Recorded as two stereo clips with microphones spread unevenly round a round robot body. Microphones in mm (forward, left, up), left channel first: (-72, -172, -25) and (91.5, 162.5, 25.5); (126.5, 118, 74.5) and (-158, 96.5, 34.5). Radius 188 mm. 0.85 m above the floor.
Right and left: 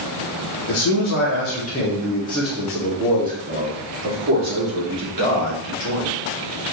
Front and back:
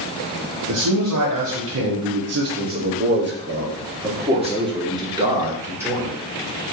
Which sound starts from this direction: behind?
A man speaking, at 0.7 s.